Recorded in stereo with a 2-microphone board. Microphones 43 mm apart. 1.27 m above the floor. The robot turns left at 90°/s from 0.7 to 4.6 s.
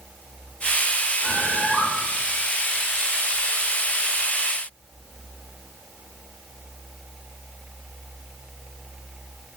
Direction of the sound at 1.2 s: 175° right.